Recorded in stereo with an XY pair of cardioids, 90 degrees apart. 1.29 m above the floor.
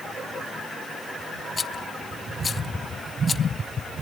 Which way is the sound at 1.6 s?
35° left.